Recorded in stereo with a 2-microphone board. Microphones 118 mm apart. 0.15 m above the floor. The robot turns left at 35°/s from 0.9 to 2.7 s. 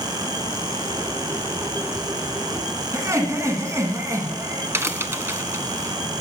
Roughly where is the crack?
Right.